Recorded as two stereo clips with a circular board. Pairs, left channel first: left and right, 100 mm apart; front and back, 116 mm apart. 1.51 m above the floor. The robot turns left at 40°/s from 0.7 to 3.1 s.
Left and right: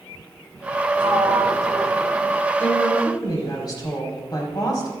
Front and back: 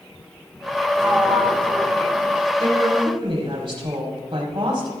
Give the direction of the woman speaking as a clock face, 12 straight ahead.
7 o'clock.